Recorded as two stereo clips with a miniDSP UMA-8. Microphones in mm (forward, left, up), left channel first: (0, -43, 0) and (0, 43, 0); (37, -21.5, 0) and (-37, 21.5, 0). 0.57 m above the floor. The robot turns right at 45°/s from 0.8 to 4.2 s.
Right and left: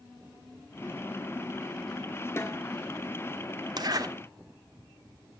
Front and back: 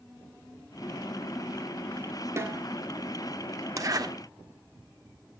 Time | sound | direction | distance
2.4 | a snare drum | 150° right | 1.8 m
3.8 | a zipper | 110° left | 1.0 m